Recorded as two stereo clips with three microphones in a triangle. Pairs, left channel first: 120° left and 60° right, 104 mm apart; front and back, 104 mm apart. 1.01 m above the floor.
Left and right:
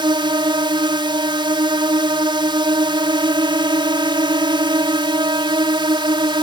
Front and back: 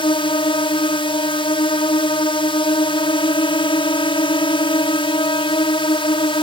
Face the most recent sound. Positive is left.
turn(degrees=-25)